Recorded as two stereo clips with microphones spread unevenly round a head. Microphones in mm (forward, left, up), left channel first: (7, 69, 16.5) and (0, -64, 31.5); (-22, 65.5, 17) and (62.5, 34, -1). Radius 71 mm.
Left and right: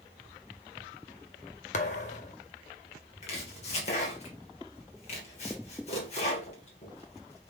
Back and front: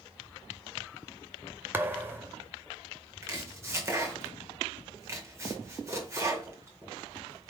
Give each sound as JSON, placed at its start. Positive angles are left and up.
{"t": 1.7, "sound": "a thud", "azimuth_deg": 50, "distance_m": 0.7}
{"t": 3.2, "sound": "chopping", "azimuth_deg": 40, "distance_m": 1.7}